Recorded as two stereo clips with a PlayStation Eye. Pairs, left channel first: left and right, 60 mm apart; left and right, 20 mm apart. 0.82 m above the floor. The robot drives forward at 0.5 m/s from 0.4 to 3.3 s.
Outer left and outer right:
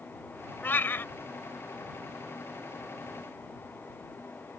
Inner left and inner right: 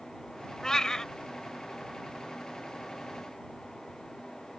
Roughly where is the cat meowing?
Left.